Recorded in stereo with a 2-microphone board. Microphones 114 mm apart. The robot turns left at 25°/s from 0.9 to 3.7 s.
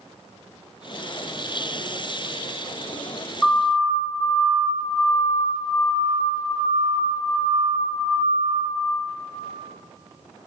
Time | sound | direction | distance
3.4 | a siren | 5° left (ahead or behind) | 10 m